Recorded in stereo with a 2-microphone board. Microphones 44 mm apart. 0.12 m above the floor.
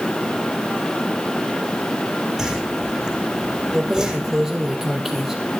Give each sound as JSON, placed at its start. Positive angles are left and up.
{"t": 2.4, "sound": "a whoosh", "side_deg": -10, "distance_m": 5.5}
{"t": 3.7, "sound": "keys jangling", "side_deg": -5, "distance_m": 2.5}